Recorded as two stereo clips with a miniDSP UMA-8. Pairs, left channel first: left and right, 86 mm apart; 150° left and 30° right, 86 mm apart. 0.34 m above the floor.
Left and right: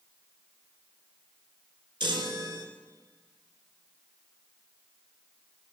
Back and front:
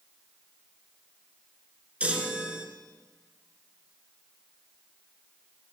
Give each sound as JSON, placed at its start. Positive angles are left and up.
{"t": 2.0, "sound": "a chime", "azimuth_deg": -105, "distance_m": 1.0}